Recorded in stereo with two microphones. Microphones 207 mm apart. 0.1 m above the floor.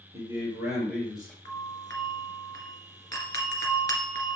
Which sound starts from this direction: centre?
A doorbell, at 1.4 s.